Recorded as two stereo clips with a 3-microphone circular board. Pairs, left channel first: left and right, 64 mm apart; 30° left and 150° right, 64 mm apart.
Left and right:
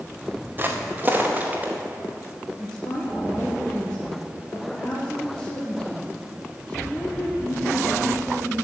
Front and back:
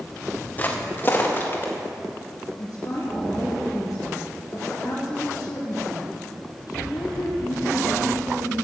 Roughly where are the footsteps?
Ahead right.